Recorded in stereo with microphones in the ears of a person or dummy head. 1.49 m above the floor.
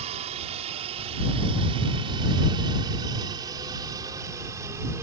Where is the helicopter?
35° right (ahead or behind); by 5.0 s 15° right (ahead or behind).